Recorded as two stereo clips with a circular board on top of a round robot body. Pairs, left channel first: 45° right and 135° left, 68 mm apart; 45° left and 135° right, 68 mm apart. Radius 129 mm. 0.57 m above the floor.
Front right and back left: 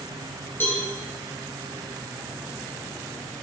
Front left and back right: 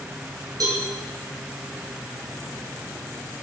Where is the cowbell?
105° right, 3 m.